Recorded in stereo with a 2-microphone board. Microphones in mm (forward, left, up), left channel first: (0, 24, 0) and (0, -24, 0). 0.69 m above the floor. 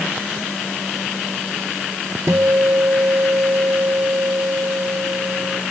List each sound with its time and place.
2.3 s a guitar: 80° right